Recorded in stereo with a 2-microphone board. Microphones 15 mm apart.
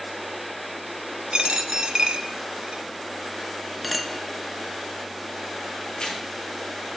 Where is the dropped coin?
60° right (ahead or behind), 0.6 m.